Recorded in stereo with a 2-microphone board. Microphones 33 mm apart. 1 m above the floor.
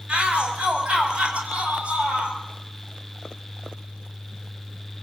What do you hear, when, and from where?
0.1 s a shout: 30° right (ahead or behind), 7.5 m